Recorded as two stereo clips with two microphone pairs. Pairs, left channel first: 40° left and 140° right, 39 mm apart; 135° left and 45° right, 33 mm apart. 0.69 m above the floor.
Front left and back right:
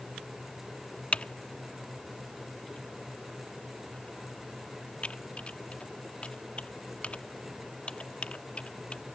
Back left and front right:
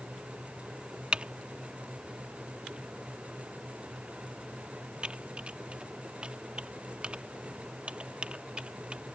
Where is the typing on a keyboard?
5° right.